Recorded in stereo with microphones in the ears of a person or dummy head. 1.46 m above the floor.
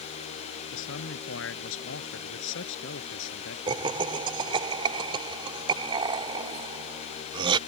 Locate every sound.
0.7 s a man speaking: 75° left (ahead or behind); by 3.6 s 70° left (ahead or behind)
3.7 s laughter: 30° right (ahead or behind)